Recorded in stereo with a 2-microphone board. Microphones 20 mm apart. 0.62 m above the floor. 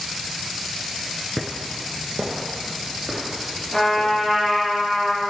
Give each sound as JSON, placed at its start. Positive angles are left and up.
{"t": 1.4, "sound": "footsteps", "side_deg": -20, "distance_m": 0.6}
{"t": 3.7, "sound": "a trumpet", "side_deg": 25, "distance_m": 3.0}